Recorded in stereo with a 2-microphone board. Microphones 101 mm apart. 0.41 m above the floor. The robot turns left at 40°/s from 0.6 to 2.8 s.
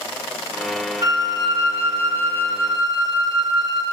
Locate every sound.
1.0 s a flute: 45° right, 0.8 m; by 3.8 s 120° right, 0.8 m